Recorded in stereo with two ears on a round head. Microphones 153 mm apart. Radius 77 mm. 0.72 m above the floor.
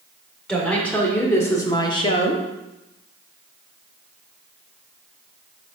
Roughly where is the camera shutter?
I don't hear a camera shutter.